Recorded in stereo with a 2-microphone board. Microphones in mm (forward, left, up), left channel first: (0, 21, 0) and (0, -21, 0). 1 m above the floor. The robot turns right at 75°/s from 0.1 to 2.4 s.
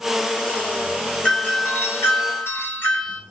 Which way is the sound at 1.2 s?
20° left.